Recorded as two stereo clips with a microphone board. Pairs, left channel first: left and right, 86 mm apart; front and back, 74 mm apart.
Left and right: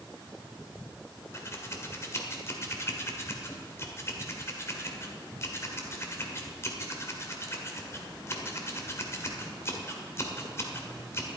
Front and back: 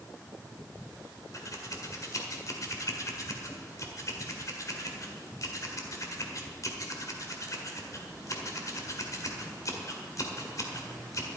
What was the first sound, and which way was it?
Scissors, 35° left.